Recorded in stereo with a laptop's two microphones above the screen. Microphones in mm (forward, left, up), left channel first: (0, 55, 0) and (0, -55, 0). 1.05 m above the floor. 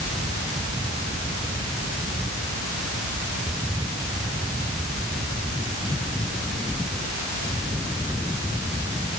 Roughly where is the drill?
No drill in this recording.